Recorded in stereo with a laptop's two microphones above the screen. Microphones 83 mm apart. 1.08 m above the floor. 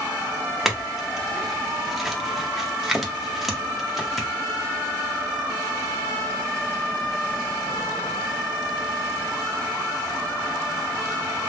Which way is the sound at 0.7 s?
5° right (ahead or behind).